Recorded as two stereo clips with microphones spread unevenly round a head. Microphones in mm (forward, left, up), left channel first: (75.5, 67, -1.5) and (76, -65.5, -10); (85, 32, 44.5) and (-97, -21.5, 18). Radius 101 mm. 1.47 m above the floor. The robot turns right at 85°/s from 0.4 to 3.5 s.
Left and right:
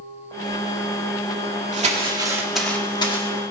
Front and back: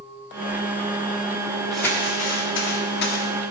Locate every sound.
1.7 s crumpling: 70° right, 1.7 m; by 3.3 s 65° left, 1.7 m